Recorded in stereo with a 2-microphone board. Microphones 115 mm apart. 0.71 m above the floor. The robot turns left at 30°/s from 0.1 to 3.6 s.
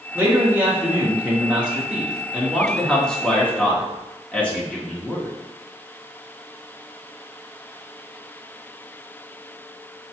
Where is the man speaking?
20° right (ahead or behind), 0.9 m; by 5.3 s 10° left (ahead or behind), 0.9 m.